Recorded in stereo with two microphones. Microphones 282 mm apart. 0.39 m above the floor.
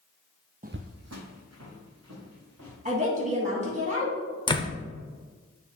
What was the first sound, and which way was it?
Footsteps, 30° right (ahead or behind).